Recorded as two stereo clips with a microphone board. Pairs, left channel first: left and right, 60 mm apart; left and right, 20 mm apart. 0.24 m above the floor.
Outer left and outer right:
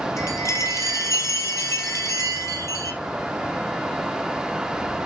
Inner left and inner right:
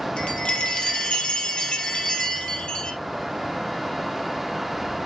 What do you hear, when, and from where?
0.2 s a chime: 60° left (ahead or behind), 2.5 m